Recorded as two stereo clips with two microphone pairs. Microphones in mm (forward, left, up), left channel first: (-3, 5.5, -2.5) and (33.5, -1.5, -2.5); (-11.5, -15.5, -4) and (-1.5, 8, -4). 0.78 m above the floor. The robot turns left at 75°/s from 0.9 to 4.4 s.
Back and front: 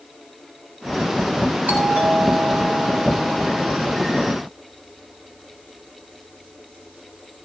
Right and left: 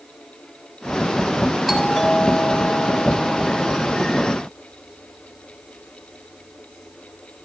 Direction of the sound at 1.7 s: 15° right.